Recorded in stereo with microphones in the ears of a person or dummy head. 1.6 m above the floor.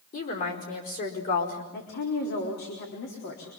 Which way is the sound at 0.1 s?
45° left (ahead or behind).